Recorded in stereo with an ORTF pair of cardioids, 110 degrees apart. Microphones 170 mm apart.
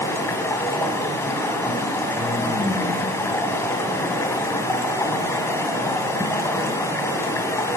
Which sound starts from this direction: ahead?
Running water, at 0.0 s.